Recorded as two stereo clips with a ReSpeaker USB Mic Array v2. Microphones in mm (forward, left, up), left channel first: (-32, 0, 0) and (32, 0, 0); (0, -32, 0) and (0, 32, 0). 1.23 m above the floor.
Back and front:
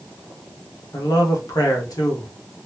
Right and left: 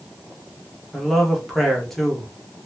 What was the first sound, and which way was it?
A man speaking, 175° right.